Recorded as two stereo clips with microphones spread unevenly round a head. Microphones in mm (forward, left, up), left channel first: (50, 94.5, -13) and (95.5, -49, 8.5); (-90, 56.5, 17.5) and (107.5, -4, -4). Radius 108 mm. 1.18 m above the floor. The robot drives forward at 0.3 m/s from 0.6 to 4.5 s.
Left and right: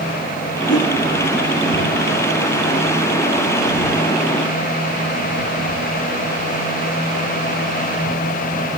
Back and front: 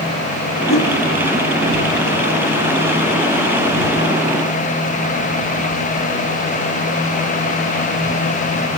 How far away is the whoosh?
About 7 m.